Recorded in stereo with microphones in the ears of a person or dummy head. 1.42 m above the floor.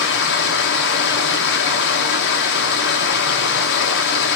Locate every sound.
0.0 s running water: 65° left (ahead or behind), 1.5 m